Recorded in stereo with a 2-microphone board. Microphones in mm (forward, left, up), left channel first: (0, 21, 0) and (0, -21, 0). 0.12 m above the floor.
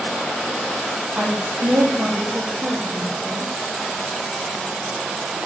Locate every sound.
1.1 s a woman speaking: 40° right (ahead or behind), 4 m